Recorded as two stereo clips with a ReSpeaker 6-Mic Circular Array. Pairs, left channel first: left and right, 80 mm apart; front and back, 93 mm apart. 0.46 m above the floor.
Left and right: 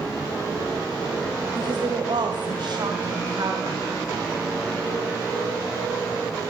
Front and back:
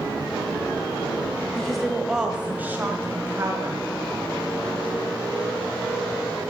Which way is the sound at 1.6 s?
85° right.